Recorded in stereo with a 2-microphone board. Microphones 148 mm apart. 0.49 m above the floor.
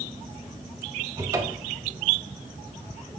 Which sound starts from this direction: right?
A cupboard door, at 1.2 s.